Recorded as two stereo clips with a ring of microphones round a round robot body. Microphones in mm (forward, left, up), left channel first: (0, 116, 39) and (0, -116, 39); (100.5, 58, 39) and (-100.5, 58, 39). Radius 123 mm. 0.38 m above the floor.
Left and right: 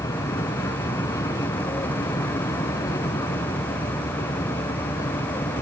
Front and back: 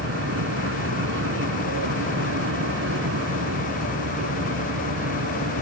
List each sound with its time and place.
0.0 s an aircraft: 165° left